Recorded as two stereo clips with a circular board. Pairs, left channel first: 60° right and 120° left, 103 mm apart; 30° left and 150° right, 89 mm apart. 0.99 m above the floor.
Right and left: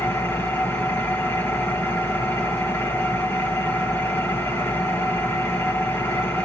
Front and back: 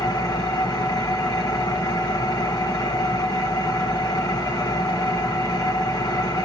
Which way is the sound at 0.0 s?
Straight ahead.